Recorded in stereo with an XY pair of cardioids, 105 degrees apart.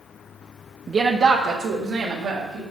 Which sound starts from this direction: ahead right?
A woman speaking, at 0.9 s.